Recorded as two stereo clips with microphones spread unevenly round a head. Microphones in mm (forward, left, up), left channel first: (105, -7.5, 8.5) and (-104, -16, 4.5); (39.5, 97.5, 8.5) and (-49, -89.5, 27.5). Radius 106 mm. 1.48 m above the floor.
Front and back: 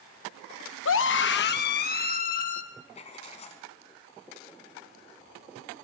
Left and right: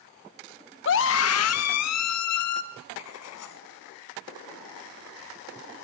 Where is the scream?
25° left, 0.9 m; by 2.6 s 60° left, 2.5 m.